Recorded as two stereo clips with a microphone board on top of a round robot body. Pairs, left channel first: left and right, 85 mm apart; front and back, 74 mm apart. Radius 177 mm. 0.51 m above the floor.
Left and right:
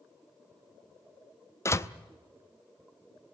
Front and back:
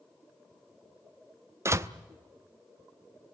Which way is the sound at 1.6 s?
140° left.